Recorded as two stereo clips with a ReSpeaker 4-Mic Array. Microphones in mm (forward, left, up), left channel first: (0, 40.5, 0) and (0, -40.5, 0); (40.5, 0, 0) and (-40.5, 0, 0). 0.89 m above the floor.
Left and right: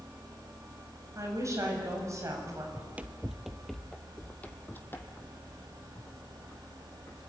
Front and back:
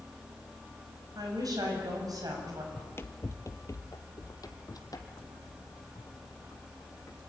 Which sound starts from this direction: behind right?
A woman speaking, at 1.1 s.